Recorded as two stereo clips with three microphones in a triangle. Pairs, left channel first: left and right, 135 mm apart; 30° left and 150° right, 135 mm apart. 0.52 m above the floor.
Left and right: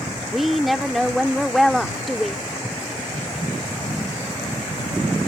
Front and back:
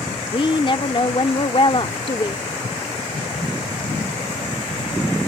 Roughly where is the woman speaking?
Ahead.